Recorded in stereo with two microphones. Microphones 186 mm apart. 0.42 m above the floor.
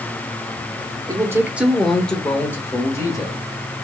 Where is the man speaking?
20° right (ahead or behind), 0.8 m; by 3.7 s 20° left (ahead or behind), 1.7 m.